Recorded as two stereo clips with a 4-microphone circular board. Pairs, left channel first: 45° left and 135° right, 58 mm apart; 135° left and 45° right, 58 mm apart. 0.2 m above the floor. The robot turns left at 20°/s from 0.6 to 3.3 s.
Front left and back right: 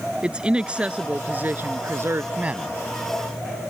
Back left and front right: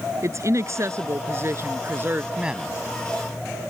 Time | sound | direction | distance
0.2 | a woman speaking | 65° right | ?
2.4 | a man speaking | 95° right | ?